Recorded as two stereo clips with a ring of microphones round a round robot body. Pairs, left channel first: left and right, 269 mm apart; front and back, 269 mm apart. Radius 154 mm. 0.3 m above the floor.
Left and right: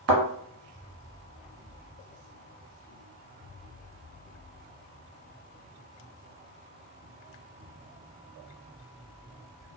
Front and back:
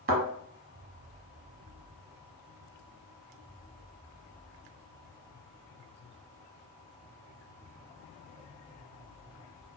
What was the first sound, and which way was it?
A thud, 125° right.